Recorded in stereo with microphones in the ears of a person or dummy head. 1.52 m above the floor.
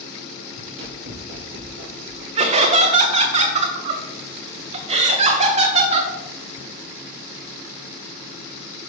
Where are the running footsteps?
40° right (ahead or behind), 2 m; by 2.2 s 15° right (ahead or behind), 2.5 m.